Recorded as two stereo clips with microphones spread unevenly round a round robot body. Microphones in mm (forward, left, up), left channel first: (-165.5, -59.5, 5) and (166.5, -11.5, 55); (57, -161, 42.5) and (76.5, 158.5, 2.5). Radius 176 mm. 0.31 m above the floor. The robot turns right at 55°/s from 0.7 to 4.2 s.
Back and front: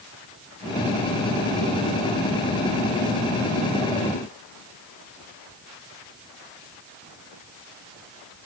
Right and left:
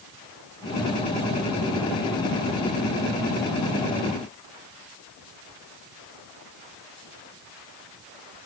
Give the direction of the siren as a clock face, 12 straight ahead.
No siren in this recording.